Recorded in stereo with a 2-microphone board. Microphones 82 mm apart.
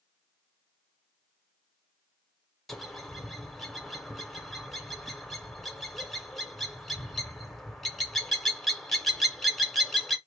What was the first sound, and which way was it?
A bird, 5° left (ahead or behind).